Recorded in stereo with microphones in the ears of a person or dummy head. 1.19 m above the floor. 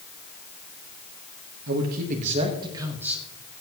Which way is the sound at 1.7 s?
60° right (ahead or behind).